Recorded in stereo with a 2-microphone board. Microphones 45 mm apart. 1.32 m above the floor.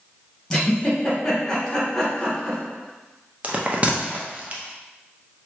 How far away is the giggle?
About 1.6 m.